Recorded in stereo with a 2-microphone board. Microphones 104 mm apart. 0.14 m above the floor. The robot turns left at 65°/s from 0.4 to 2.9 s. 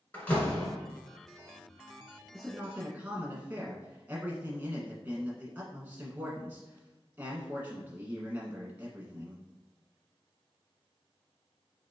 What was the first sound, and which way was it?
A door slam, 15° left (ahead or behind).